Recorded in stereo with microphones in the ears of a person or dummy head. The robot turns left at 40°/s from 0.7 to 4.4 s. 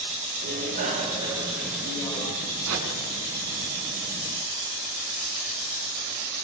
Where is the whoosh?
75° right (ahead or behind), 7 m; by 2.9 s 80° right, 7 m.